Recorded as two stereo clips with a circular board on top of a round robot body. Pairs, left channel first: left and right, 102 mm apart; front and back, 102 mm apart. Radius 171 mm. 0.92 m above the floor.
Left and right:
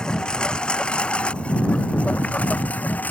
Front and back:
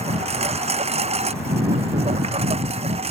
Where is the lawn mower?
170° left; by 3.1 s 165° left.